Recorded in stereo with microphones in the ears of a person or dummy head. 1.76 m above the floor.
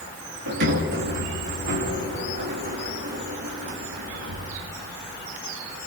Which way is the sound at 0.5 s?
60° right (ahead or behind).